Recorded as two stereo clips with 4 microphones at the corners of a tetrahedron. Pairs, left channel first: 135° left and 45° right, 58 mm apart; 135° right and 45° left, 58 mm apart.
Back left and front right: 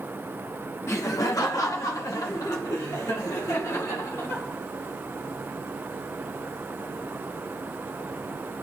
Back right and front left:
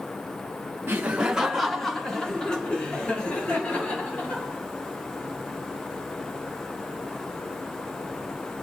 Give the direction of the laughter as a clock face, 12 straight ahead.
9 o'clock.